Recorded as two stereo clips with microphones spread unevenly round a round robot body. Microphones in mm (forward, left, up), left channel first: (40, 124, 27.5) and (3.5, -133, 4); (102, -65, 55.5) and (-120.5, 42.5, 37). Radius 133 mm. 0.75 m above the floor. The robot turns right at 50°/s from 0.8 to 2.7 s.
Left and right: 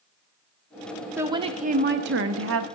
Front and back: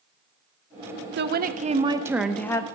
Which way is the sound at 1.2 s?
175° right.